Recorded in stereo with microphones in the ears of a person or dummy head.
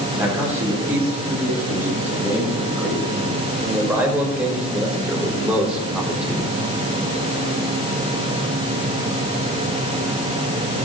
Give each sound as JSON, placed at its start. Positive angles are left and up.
{"t": 0.1, "sound": "a man speaking", "side_deg": -10, "distance_m": 8.0}